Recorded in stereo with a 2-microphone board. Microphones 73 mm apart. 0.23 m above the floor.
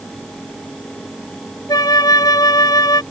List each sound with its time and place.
1.7 s a flute: 60° left (ahead or behind)